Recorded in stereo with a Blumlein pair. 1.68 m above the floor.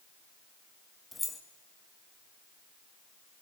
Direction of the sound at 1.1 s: 10° left.